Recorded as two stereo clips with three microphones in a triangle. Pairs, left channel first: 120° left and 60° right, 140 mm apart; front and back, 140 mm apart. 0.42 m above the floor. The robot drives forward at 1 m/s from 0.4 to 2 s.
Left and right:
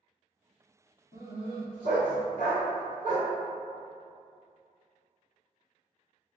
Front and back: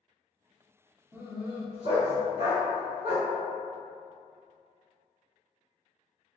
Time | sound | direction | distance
1.1 | a dog barking | 100° left | 0.9 m